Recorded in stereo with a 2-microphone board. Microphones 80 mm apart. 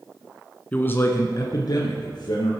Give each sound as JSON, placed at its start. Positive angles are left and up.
{"t": 0.7, "sound": "a man speaking", "side_deg": 20, "distance_m": 1.3}